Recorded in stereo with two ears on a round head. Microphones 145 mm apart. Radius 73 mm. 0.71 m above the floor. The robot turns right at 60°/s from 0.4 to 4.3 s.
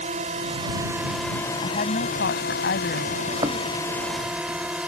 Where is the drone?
45° right; by 4.9 s 175° right.